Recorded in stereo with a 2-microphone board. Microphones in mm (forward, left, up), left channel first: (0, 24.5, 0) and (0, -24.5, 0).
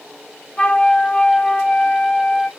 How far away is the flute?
About 0.5 m.